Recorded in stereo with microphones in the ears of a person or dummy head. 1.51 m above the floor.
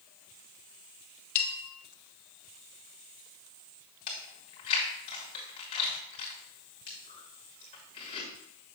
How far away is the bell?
About 0.9 m.